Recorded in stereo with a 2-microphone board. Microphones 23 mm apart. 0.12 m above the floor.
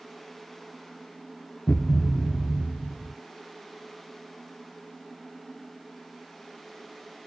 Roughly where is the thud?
Left.